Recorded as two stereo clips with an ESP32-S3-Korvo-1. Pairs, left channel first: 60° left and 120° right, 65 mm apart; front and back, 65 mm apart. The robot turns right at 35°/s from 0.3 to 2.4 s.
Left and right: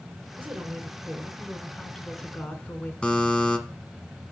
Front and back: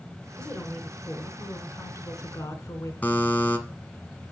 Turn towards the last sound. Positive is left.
turn(degrees=10)